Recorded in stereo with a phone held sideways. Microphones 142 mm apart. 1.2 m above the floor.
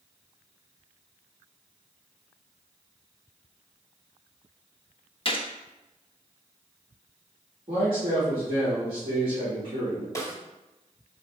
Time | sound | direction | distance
5.2 | a gunshot | 40° left (ahead or behind) | 0.6 m
7.7 | a man speaking | 40° right (ahead or behind) | 1.8 m
10.2 | a snare drum | 20° left (ahead or behind) | 0.7 m